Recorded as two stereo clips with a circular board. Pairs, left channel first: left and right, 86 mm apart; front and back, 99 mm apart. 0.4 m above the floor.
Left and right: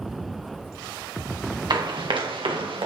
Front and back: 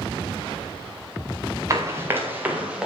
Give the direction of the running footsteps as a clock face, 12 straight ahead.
4 o'clock.